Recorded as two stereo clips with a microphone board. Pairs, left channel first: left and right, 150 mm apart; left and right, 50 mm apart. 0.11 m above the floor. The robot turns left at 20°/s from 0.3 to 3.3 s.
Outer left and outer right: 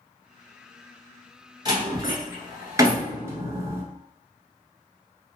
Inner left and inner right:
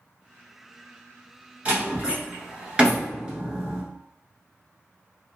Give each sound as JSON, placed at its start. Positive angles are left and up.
{"t": 1.6, "sound": "a door slam", "side_deg": -30, "distance_m": 1.2}